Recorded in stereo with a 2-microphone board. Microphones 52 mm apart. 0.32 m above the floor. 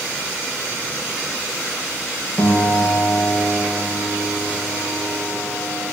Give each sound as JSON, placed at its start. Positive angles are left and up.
{"t": 2.4, "sound": "a piano", "side_deg": 80, "distance_m": 5.0}